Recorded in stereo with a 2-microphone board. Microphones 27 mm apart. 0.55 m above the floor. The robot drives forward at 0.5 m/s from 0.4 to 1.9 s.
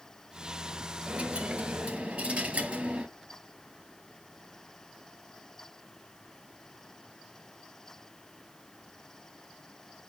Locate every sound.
1.1 s a dropped coin: 40° right (ahead or behind), 2.5 m; by 3.1 s 35° right (ahead or behind), 3 m